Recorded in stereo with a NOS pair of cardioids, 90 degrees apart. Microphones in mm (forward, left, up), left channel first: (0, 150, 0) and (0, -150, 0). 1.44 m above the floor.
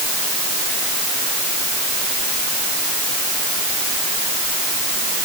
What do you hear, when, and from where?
Only background noise.